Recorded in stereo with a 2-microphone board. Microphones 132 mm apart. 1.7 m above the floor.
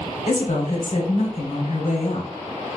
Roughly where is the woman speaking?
Left.